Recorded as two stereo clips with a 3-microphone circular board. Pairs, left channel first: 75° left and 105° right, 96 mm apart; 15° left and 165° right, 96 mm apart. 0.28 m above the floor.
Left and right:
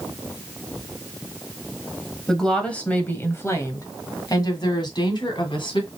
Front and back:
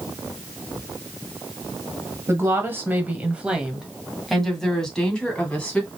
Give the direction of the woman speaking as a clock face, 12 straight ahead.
7 o'clock.